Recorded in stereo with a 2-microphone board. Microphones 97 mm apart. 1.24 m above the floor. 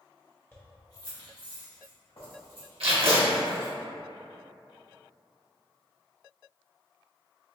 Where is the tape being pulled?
85° right, 1.0 m.